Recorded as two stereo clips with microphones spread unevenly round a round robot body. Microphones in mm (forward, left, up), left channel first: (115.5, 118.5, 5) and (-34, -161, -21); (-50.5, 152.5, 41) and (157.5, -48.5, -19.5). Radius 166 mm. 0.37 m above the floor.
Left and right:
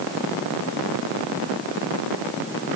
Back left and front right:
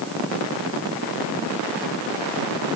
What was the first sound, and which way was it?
Only background noise.